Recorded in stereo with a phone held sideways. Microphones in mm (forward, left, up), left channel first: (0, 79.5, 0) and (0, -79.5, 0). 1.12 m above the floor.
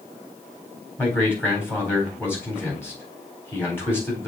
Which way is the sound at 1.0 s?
15° left (ahead or behind).